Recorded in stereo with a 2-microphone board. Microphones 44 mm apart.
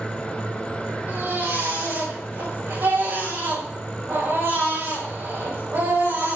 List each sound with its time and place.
1.1 s a baby crying: 70° right (ahead or behind), 8 m